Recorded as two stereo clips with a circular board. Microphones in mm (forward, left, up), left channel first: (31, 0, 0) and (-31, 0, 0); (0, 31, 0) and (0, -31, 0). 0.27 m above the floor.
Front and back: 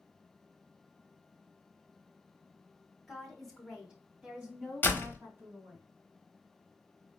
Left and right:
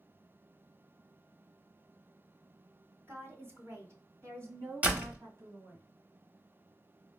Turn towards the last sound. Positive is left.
turn(degrees=-40)